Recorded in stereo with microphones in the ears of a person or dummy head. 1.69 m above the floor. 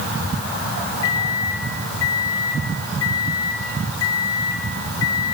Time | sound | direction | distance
1.0 | a microwave | 20° left (ahead or behind) | 1.5 m